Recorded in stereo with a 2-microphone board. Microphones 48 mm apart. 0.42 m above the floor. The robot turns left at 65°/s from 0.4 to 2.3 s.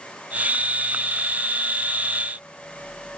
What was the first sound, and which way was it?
Only background noise.